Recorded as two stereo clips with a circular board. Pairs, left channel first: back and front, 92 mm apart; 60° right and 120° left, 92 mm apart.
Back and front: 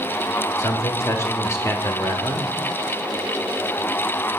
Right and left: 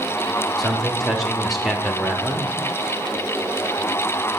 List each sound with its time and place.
0.6 s a man speaking: 150° right, 0.8 m